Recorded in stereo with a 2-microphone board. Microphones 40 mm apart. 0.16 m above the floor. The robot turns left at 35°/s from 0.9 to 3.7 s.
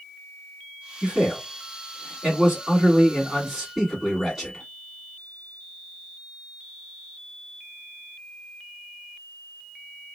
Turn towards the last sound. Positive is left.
turn(degrees=-170)